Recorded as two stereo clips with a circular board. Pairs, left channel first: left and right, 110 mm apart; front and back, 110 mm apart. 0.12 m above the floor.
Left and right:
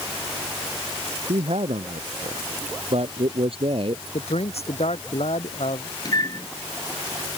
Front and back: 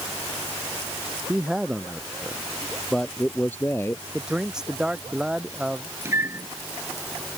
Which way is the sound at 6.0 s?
125° left.